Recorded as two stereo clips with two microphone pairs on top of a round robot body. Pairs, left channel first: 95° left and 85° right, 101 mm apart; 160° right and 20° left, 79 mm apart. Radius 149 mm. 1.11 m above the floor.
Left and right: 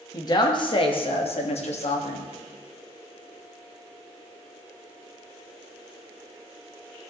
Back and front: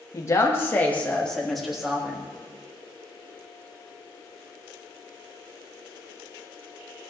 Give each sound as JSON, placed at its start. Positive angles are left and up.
{"t": 0.1, "sound": "a woman speaking", "azimuth_deg": 150, "distance_m": 1.8}